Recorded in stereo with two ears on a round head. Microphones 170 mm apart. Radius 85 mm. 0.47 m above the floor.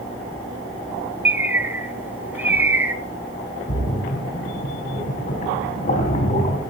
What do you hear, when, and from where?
1.2 s a bird: 10° right (ahead or behind), 1.1 m
3.7 s a splash: 40° left (ahead or behind), 4 m